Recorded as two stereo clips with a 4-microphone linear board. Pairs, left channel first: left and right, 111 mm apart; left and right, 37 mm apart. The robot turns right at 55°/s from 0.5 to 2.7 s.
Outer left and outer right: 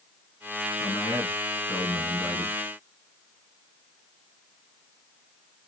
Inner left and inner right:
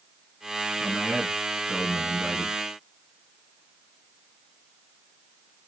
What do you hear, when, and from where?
0.8 s a man speaking: 115° left, 2 m; by 2.6 s 150° right, 2 m